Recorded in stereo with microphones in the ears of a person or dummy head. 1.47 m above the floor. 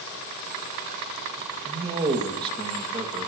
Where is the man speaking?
25° right (ahead or behind), 2 m.